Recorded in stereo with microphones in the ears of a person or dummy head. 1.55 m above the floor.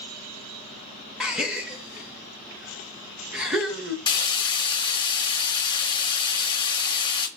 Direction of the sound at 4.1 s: 25° left (ahead or behind).